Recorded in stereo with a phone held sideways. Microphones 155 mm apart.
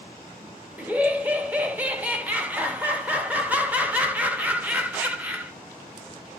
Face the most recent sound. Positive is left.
turn(degrees=-10)  # may be behind; listen again after turning